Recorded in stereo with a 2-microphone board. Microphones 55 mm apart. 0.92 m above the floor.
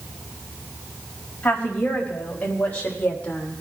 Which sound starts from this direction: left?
A woman speaking, at 1.4 s.